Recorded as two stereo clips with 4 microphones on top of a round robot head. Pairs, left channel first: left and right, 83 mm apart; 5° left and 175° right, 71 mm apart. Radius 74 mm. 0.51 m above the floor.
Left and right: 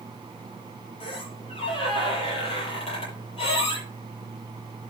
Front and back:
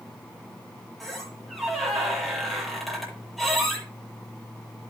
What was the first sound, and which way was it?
A squeak, 95° left.